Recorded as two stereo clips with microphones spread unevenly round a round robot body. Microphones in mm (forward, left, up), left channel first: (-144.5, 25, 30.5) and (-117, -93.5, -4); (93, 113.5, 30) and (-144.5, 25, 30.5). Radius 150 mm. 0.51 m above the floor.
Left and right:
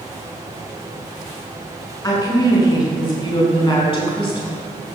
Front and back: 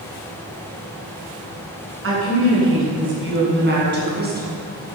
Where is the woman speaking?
165° left, 7 m; by 4.6 s 145° left, 5.5 m.